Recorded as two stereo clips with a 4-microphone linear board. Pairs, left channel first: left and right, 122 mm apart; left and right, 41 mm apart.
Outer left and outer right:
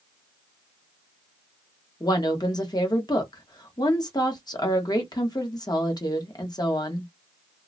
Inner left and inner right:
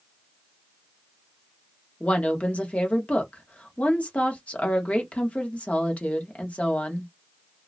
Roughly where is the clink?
No clink in this recording.